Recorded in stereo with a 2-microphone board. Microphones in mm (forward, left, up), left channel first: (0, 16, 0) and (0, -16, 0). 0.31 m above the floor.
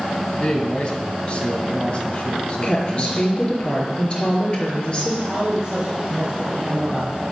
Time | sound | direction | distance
0.4 | a man speaking | 35° left (ahead or behind) | 2.5 m
2.6 | a woman speaking | 35° left (ahead or behind) | 4.5 m
5.3 | a man speaking | 25° right (ahead or behind) | 2 m